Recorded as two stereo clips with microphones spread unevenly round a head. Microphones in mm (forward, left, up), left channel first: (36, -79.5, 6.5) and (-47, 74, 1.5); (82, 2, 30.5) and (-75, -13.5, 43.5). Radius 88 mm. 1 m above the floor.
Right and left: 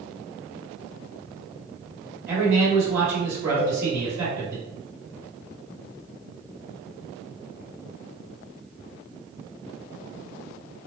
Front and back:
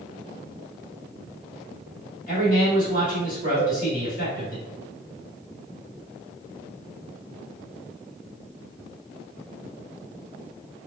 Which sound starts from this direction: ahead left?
A man speaking, at 2.3 s.